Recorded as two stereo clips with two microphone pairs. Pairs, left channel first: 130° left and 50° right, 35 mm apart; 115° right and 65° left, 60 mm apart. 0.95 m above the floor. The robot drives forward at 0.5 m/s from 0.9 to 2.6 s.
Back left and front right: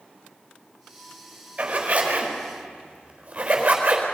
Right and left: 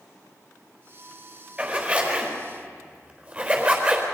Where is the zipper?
Straight ahead, 4.5 m.